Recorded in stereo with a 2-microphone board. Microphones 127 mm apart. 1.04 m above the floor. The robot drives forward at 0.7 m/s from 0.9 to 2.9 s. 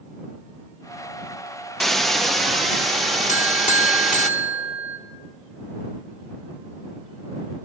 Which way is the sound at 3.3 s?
65° left (ahead or behind).